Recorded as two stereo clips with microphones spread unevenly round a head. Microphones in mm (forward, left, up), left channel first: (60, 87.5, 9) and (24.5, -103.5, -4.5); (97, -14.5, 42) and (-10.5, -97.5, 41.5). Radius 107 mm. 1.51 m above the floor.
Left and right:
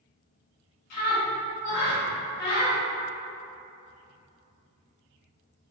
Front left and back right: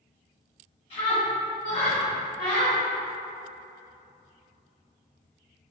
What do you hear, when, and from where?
0.9 s a scream: 100° left, 1.3 m